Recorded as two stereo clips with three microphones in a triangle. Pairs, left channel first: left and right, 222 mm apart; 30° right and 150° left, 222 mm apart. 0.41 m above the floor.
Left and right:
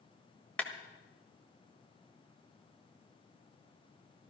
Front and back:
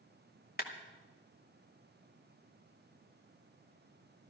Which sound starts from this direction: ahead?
A clap, at 0.6 s.